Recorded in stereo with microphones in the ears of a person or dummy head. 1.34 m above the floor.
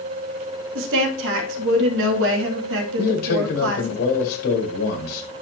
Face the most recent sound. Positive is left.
turn(degrees=50)  # may be behind; listen again after turning